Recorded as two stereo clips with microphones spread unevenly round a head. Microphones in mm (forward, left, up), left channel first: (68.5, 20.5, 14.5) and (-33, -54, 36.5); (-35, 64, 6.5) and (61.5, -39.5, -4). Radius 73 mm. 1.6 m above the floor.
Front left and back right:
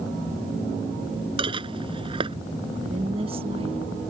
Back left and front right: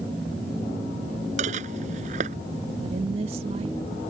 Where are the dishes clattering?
95° right.